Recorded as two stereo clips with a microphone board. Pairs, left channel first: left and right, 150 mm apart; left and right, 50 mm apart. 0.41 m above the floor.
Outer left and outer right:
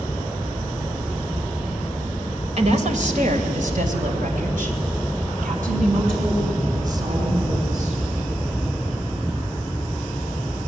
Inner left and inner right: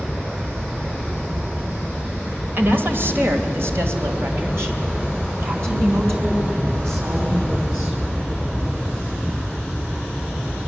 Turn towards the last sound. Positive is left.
turn(degrees=-60)  # may be behind; listen again after turning